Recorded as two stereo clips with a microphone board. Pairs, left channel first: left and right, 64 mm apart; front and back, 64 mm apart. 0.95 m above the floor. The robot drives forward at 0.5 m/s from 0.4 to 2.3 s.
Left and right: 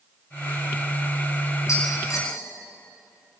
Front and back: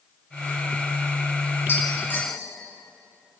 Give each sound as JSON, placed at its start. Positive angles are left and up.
{"t": 1.7, "sound": "tapping", "azimuth_deg": 55, "distance_m": 7.0}